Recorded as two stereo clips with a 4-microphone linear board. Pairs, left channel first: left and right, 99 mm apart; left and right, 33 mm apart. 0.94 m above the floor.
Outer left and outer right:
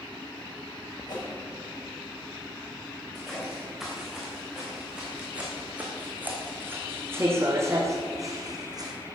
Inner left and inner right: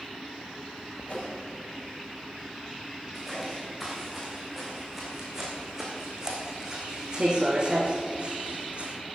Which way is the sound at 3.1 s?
Centre (ahead or behind).